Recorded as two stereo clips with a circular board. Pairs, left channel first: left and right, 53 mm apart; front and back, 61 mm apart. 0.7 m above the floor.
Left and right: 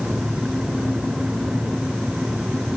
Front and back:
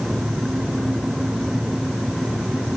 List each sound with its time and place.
Only background noise.